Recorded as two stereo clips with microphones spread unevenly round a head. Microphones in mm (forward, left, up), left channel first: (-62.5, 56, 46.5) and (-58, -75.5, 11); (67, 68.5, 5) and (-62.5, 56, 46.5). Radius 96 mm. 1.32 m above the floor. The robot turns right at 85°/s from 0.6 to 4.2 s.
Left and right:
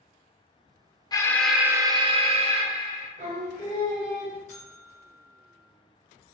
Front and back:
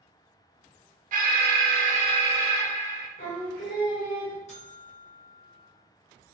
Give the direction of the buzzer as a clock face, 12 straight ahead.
11 o'clock.